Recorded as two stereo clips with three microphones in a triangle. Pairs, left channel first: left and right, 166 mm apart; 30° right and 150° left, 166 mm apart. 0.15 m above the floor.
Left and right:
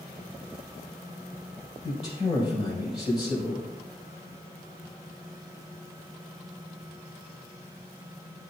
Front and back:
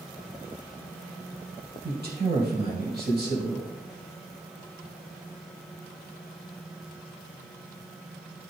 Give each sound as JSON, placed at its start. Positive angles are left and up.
{"t": 1.8, "sound": "a man speaking", "azimuth_deg": 140, "distance_m": 4.5}